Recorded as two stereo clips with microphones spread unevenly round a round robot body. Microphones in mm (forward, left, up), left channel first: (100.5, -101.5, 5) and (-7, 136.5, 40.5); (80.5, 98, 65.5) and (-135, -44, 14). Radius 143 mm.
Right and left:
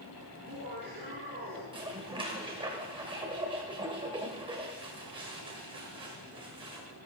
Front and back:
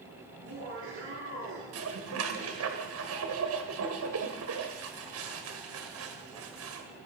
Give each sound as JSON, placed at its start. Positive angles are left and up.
{"t": 0.3, "sound": "laughter", "azimuth_deg": 175, "distance_m": 8.0}
{"t": 1.7, "sound": "dishes clattering", "azimuth_deg": -170, "distance_m": 1.7}